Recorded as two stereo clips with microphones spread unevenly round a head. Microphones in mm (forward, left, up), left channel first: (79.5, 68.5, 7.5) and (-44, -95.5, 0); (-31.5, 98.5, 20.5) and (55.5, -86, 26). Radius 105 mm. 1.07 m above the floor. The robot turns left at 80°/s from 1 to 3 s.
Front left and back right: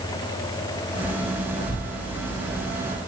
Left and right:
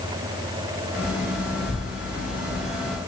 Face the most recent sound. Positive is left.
turn(degrees=-75)